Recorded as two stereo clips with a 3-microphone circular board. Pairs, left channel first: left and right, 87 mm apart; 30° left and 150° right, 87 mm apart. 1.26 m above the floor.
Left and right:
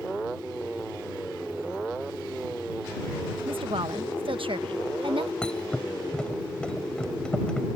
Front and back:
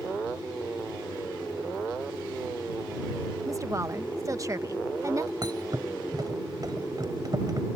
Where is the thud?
170° left.